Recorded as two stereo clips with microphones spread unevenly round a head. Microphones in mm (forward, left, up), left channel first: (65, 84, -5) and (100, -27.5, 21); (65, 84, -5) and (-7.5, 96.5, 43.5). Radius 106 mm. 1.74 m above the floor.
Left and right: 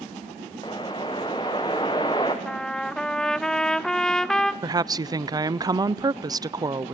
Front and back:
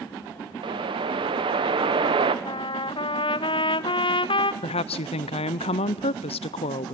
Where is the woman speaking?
25° right, 0.7 m.